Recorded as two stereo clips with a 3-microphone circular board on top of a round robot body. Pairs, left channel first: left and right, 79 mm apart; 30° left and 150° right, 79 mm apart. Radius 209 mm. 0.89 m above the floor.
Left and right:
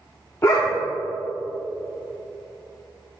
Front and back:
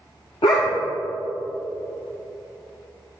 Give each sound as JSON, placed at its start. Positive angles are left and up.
{"t": 0.4, "sound": "a dog barking", "azimuth_deg": 25, "distance_m": 0.6}